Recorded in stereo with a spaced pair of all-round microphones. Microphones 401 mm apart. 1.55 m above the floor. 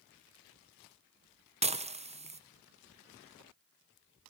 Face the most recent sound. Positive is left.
turn(degrees=-15)  # may be behind; listen again after turning